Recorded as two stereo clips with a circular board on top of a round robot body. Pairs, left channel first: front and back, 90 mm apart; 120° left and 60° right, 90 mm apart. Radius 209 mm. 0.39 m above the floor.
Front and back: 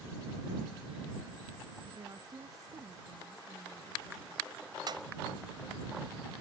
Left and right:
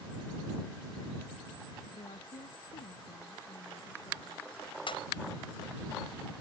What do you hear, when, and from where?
1.9 s a woman speaking: 135° left; by 4.5 s 120° left
4.9 s a pop: 140° left